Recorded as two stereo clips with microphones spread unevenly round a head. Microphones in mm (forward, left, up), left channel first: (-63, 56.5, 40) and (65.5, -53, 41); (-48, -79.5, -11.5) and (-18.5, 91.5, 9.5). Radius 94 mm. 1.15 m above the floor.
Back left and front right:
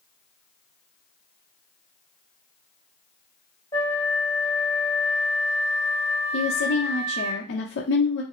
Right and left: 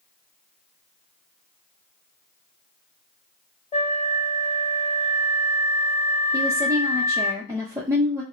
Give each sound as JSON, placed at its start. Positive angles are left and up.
{"t": 3.7, "sound": "a flute", "azimuth_deg": -155, "distance_m": 2.5}
{"t": 6.3, "sound": "a woman speaking", "azimuth_deg": 155, "distance_m": 0.7}